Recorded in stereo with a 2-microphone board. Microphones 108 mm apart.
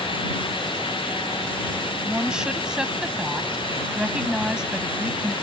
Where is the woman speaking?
10° right (ahead or behind).